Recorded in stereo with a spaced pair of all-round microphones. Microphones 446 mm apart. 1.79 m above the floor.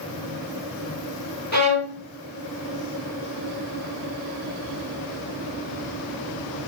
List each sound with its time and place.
1.5 s a violin: 40° right (ahead or behind), 1.9 m